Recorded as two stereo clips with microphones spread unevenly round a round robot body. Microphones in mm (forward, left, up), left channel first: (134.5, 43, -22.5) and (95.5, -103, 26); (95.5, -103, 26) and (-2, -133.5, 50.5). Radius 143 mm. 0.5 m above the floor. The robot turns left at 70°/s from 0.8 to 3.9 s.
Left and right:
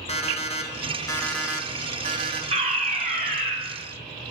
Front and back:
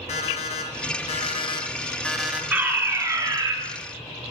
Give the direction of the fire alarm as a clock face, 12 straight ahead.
3 o'clock.